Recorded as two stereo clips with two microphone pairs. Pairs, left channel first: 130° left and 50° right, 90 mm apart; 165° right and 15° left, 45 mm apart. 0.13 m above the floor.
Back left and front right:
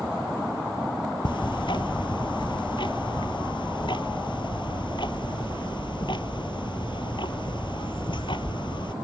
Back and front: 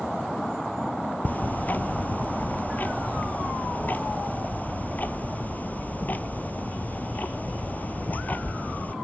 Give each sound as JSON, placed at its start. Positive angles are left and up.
{"t": 1.2, "sound": "ticking", "azimuth_deg": 150, "distance_m": 0.8}